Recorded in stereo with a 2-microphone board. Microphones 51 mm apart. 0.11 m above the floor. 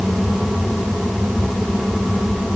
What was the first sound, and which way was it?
Only background noise.